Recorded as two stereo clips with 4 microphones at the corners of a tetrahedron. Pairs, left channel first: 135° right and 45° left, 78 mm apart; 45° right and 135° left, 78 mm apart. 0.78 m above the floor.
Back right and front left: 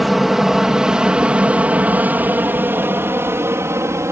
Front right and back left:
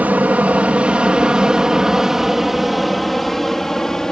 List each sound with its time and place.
0.0 s an aircraft: 130° left; by 4.1 s 35° left